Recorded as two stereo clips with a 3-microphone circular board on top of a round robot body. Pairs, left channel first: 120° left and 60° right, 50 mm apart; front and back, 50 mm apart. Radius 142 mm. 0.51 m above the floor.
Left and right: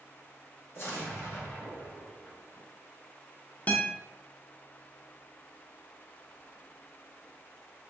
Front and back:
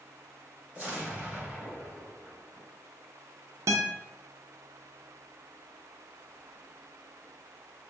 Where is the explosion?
115° left, 2.0 m.